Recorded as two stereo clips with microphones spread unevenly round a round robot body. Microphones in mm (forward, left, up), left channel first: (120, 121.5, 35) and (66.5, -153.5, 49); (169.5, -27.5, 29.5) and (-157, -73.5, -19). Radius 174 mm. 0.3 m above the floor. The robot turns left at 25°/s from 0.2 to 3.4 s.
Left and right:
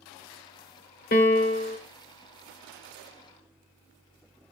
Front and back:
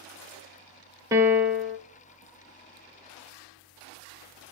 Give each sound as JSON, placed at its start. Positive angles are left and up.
{"t": 1.1, "sound": "a piano", "azimuth_deg": 115, "distance_m": 0.7}